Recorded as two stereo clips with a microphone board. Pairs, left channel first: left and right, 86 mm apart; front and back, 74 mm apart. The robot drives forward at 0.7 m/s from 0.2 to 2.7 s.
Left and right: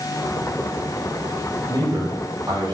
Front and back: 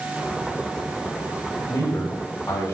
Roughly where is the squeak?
No squeak in this recording.